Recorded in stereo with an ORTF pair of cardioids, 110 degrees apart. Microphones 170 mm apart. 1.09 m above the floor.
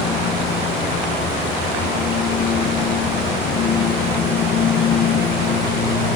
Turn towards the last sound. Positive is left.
turn(degrees=65)